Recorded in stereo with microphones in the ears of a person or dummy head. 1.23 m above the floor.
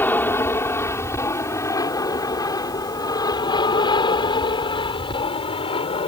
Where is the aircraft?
10° left (ahead or behind); by 6.1 s 30° left (ahead or behind).